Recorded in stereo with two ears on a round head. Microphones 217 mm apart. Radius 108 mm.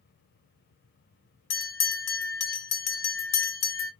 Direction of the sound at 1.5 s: 65° left (ahead or behind).